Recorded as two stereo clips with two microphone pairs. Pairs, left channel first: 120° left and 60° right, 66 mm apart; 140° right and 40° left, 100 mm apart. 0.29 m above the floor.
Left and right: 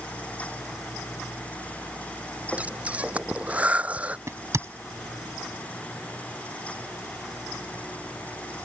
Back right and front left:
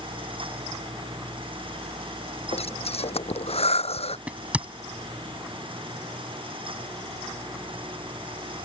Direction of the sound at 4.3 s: 30° right.